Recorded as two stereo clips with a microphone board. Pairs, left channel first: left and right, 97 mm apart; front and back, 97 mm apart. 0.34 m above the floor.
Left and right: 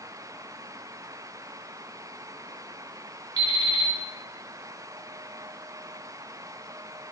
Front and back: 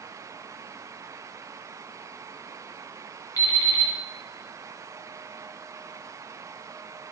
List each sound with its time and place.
3.4 s an alarm clock: 45° right, 1.4 m